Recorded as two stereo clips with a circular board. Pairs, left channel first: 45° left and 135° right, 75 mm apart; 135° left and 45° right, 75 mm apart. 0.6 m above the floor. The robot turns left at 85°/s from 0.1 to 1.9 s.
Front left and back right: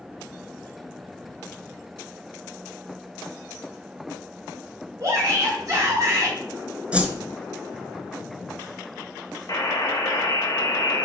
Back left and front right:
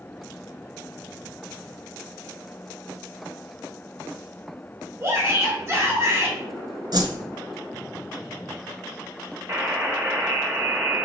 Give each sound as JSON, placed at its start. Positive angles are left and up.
{"t": 5.0, "sound": "a shout", "azimuth_deg": -100, "distance_m": 3.5}
{"t": 6.9, "sound": "a whoosh", "azimuth_deg": -60, "distance_m": 1.2}
{"t": 9.5, "sound": "a buzzer", "azimuth_deg": 5, "distance_m": 1.9}